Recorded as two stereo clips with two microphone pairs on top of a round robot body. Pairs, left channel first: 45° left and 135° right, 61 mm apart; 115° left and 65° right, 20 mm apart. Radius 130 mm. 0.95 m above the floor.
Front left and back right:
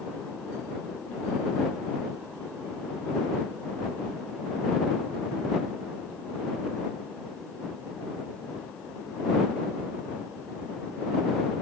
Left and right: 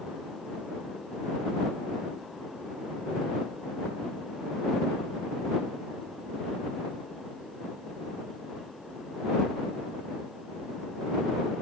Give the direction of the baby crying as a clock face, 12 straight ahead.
No baby crying in this recording.